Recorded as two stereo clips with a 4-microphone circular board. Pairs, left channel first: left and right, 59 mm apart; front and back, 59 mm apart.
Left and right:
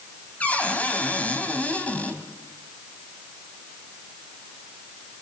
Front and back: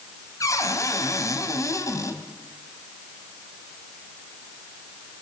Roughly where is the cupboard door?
Ahead left.